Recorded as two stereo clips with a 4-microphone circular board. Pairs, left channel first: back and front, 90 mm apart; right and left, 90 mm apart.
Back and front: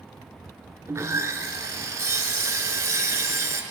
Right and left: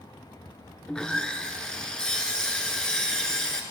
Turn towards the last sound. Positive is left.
turn(degrees=-15)